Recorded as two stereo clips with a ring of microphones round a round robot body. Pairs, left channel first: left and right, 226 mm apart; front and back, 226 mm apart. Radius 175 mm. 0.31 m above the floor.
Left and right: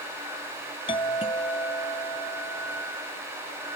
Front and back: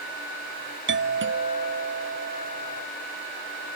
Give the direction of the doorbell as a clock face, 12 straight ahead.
7 o'clock.